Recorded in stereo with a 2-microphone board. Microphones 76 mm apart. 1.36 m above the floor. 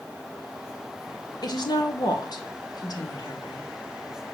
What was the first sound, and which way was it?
A woman speaking, 60° left (ahead or behind).